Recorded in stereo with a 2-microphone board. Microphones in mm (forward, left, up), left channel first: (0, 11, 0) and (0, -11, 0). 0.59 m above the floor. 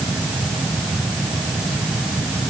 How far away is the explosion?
I don't hear an explosion.